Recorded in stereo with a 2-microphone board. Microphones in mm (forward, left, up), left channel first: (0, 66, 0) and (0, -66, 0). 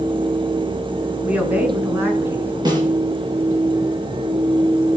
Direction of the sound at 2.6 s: 35° right (ahead or behind).